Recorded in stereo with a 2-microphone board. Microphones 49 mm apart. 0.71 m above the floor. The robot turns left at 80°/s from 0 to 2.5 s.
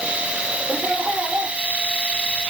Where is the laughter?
15° right, 1.4 m; by 1.6 s 85° right, 1.4 m.